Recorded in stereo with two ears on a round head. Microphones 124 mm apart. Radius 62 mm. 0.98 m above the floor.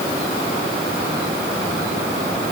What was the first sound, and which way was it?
Only background noise.